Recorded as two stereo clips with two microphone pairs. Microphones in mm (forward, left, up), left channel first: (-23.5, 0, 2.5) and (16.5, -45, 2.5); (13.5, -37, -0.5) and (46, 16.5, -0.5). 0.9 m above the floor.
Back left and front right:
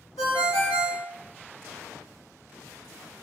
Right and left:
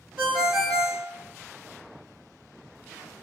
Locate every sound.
0.2 s a ringtone: 140° left, 1.6 m